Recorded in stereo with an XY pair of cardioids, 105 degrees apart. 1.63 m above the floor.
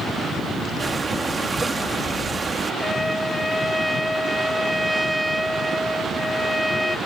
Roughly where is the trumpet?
Ahead.